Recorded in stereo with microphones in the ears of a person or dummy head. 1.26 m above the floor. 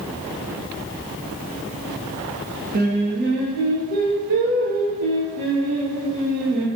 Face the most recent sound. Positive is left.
turn(degrees=-55)  # may be behind; listen again after turning